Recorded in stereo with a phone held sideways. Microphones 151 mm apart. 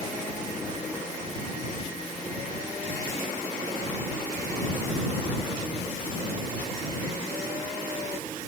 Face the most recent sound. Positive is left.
No sound to turn to.